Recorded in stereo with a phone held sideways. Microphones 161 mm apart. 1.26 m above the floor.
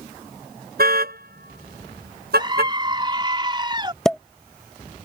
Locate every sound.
0.8 s a car horn: 70° right (ahead or behind); by 2.7 s 85° right
2.4 s a scream: 30° right (ahead or behind)
4.0 s a pop: 5° left (ahead or behind)